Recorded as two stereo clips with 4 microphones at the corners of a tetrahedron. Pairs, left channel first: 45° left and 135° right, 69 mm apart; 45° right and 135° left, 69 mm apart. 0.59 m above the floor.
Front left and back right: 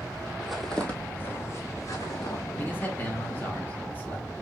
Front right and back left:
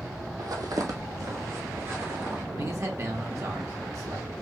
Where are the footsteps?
145° left, 1.0 m; by 2.4 s 80° left, 2.5 m.